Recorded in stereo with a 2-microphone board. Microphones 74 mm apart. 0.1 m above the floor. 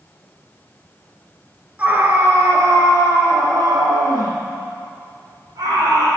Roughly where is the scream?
Right.